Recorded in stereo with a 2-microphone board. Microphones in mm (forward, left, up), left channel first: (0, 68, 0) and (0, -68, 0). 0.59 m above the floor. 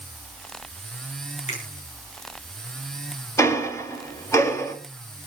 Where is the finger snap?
55° left (ahead or behind), 7 m.